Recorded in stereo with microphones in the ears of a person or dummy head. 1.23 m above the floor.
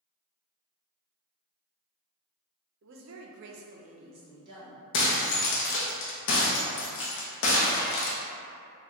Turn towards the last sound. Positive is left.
turn(degrees=65)  # may be behind; listen again after turning